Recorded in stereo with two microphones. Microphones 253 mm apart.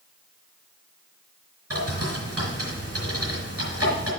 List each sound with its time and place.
1.7 s a bird: 65° right (ahead or behind), 4 m